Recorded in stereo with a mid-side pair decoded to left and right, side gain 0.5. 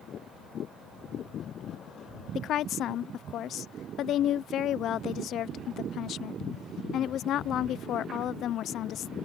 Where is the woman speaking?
60° left.